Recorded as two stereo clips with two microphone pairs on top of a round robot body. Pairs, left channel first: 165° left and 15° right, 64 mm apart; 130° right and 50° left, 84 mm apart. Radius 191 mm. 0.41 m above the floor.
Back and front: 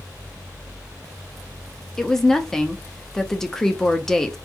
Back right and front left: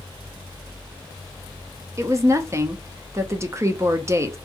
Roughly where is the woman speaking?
Ahead left.